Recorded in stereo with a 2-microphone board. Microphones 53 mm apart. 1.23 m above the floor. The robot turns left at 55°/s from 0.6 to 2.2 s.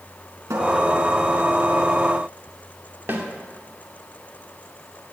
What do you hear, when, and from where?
0.5 s a cupboard door: 80° right, 4 m; by 0.7 s 75° right (ahead or behind), 4 m
3.1 s a snare drum: 45° right (ahead or behind), 2.5 m